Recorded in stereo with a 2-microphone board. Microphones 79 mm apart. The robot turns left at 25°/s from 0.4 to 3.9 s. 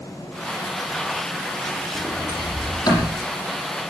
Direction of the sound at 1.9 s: 35° left (ahead or behind).